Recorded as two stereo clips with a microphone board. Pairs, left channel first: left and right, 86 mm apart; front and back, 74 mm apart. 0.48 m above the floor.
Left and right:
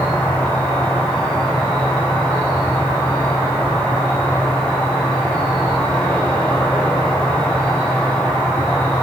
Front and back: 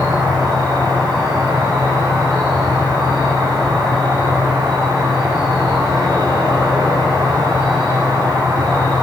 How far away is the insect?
About 4.5 m.